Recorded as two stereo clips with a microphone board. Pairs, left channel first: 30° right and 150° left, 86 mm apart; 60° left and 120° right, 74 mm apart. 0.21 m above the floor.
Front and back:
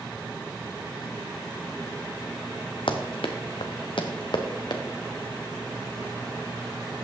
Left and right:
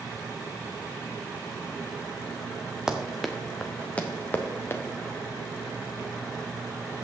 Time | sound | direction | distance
2.9 | running footsteps | 40° right | 1.2 m